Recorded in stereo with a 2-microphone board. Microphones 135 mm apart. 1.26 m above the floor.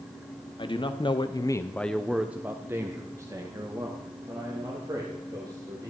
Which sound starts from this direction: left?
A man speaking, at 0.6 s.